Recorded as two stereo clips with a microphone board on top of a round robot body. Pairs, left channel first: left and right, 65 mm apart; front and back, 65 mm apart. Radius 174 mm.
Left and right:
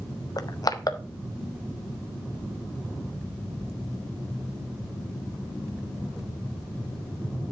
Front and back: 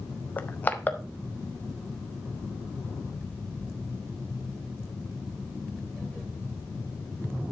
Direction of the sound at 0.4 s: 60° left.